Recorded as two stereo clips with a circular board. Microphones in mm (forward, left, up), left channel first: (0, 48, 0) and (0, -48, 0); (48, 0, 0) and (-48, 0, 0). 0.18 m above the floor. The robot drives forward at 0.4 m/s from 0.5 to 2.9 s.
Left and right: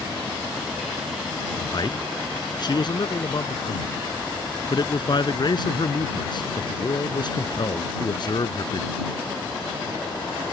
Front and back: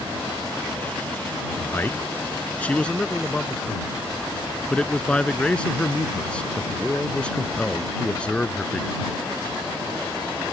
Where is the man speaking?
60° left; by 8.9 s 75° left.